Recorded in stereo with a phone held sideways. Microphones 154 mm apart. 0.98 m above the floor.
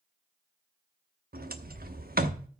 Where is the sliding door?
75° right (ahead or behind), 1.0 m.